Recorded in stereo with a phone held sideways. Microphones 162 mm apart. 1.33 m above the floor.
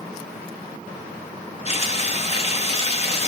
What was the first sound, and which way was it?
Frying, 40° left (ahead or behind).